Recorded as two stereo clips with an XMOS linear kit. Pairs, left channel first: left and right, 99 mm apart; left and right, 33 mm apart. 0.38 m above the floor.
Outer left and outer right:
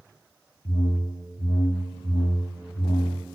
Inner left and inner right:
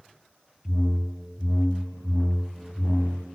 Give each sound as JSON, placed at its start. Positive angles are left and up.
{"t": 0.7, "sound": "a whoosh", "side_deg": 80, "distance_m": 0.6}